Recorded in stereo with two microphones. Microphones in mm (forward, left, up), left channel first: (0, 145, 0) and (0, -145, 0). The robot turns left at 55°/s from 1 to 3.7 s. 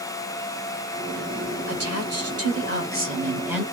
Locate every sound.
1.7 s a woman speaking: 70° right, 1.6 m; by 3.6 s straight behind, 1.6 m